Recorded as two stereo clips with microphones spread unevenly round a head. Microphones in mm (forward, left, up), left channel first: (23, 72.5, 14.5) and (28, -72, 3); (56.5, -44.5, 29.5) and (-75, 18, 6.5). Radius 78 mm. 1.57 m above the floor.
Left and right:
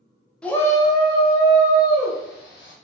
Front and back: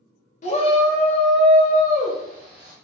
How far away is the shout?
About 0.8 m.